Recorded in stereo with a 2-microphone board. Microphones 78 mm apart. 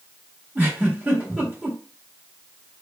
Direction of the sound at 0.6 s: 20° right (ahead or behind).